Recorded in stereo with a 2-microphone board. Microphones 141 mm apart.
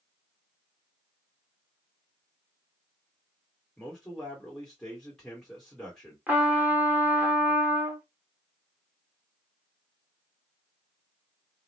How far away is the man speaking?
About 1.4 m.